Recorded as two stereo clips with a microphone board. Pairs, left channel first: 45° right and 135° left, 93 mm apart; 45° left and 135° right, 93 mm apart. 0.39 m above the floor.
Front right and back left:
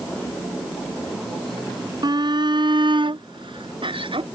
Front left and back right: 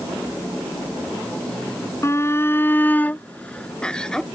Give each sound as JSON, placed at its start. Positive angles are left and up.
{"t": 2.0, "sound": "a shout", "azimuth_deg": 105}